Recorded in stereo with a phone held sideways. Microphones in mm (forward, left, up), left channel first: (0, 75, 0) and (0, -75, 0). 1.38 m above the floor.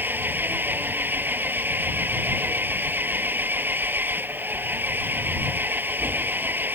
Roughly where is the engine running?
Centre.